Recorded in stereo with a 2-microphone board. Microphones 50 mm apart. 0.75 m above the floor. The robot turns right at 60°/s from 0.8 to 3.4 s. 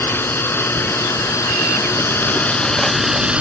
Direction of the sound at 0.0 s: 50° left.